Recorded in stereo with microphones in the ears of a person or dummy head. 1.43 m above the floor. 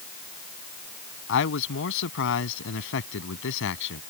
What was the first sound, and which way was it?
A man speaking, 70° left (ahead or behind).